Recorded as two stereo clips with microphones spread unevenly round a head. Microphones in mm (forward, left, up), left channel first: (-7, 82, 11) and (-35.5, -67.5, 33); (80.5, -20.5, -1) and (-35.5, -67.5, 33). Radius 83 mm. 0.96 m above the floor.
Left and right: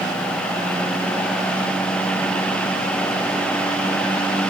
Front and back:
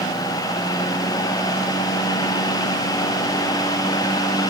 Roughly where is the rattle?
No rattle in this recording.